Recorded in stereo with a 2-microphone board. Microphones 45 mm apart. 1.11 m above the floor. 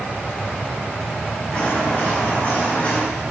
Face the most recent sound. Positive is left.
turn(degrees=25)  # may be behind; listen again after turning